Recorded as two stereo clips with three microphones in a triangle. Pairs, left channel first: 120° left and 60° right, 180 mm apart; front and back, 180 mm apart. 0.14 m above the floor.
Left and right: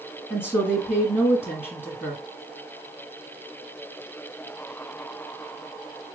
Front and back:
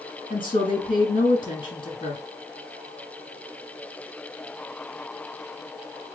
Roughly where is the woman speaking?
Ahead left.